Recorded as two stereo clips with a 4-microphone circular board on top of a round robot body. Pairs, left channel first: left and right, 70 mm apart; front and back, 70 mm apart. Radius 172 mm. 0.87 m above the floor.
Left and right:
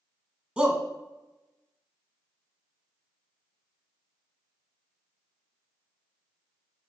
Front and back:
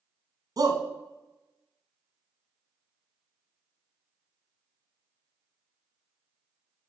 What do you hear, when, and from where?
0.6 s a shout: 160° right, 1.9 m